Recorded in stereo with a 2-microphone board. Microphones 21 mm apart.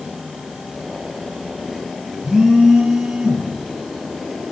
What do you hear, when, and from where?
2.2 s a phone buzzing: 30° right (ahead or behind), 4.5 m